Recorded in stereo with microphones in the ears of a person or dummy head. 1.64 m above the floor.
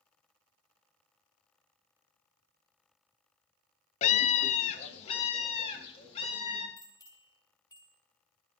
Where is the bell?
20° left (ahead or behind), 4 m.